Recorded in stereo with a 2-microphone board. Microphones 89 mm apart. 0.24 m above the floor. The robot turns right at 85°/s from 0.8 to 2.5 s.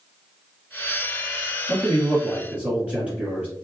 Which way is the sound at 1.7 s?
20° left (ahead or behind).